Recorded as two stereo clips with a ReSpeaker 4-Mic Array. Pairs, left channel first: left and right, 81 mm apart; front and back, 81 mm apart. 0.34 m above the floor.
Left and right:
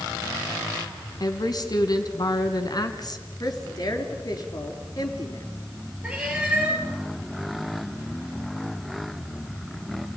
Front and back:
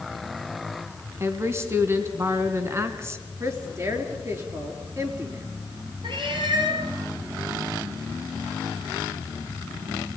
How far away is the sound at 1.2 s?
About 3 m.